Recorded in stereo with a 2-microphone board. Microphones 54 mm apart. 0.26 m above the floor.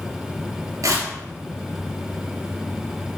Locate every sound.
0.8 s tearing paper: 75° right (ahead or behind), 2.5 m